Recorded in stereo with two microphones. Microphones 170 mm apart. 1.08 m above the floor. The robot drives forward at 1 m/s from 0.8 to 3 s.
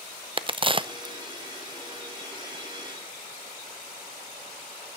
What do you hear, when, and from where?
0.4 s a crack: 35° right (ahead or behind), 0.7 m; by 1.1 s 25° right (ahead or behind), 0.9 m